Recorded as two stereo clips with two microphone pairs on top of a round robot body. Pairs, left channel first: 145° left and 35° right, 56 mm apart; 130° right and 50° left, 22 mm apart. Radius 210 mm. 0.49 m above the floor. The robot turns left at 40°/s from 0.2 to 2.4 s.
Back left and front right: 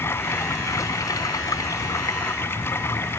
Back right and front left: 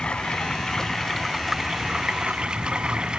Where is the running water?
175° right; by 3.2 s 95° left.